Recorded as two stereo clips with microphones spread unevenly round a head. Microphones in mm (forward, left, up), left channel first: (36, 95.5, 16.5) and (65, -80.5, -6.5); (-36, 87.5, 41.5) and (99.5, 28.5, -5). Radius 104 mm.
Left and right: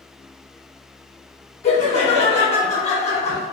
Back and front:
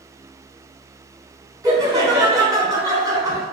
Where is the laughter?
50° left, 1.1 m.